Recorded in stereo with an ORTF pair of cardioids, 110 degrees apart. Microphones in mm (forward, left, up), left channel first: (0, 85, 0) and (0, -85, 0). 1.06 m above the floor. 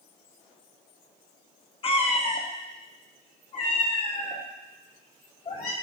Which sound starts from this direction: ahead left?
A cat meowing, at 1.8 s.